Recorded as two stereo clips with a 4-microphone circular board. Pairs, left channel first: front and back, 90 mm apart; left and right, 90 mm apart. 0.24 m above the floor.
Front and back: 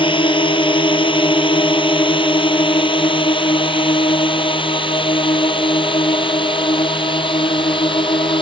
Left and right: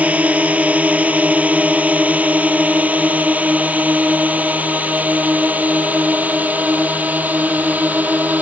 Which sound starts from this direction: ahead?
A drone, at 0.0 s.